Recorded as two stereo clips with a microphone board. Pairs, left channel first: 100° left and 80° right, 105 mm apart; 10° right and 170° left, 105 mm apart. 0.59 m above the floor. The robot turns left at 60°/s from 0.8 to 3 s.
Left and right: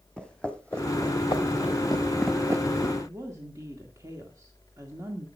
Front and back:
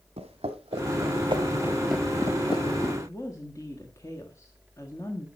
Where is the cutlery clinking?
I don't hear cutlery clinking.